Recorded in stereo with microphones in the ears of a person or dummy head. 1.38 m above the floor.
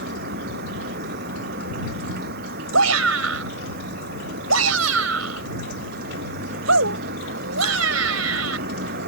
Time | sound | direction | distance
0.0 | a vehicle | 55° right (ahead or behind) | ?
2.7 | a shout | 80° right | ?